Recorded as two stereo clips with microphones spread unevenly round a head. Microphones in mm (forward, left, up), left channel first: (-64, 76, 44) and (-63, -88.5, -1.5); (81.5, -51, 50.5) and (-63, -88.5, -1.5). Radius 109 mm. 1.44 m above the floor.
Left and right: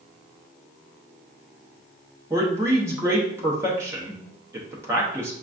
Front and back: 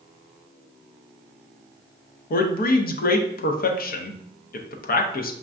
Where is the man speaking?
15° right, 0.6 m.